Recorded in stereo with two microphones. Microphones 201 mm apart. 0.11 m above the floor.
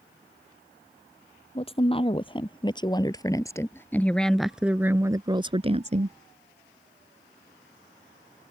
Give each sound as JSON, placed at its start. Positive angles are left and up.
{"t": 1.6, "sound": "a woman speaking", "side_deg": 30}